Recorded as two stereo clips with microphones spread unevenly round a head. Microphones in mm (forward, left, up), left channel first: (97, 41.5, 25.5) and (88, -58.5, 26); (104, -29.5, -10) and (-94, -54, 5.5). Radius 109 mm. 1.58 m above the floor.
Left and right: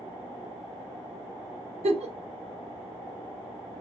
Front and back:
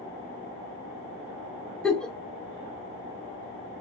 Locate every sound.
1.8 s a giggle: 80° right, 0.5 m